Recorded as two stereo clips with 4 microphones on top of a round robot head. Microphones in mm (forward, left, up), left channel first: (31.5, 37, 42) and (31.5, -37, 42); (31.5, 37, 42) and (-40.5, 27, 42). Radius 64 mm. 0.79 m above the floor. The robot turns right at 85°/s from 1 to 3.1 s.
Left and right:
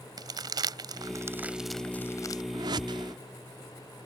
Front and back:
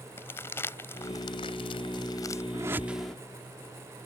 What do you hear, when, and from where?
0.2 s crumpling: 60° right; by 2.4 s 60° left
2.5 s a whoosh: 125° right; by 3.1 s 75° right